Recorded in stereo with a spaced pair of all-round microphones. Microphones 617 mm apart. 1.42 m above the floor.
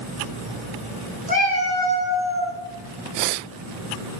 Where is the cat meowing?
10° left (ahead or behind), 1.6 m; by 2.5 s 50° left (ahead or behind), 2 m.